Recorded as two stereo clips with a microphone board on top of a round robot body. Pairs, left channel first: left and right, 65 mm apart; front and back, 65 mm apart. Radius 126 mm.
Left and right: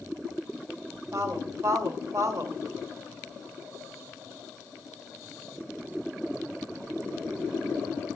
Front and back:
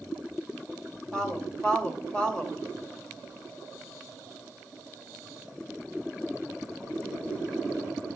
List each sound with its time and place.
1.1 s a woman speaking: 75° right, 2 m